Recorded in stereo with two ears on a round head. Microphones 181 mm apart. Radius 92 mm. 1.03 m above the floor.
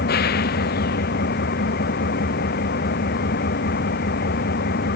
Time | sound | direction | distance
0.0 | an engine running | 45° left (ahead or behind) | ?